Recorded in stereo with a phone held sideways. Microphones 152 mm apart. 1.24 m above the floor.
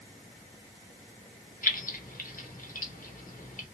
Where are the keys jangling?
65° left (ahead or behind), 1.0 m.